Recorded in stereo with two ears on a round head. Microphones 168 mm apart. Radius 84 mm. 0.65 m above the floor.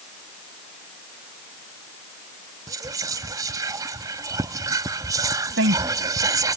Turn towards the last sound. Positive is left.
turn(degrees=-70)  # may be behind; listen again after turning